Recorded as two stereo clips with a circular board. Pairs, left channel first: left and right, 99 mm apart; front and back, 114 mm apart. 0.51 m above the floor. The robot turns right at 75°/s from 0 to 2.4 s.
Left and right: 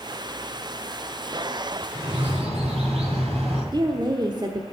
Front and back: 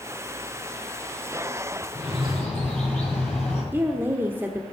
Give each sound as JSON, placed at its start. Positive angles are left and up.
{"t": 1.9, "sound": "a bird", "azimuth_deg": -115, "distance_m": 8.0}
{"t": 3.7, "sound": "a woman speaking", "azimuth_deg": -115, "distance_m": 1.0}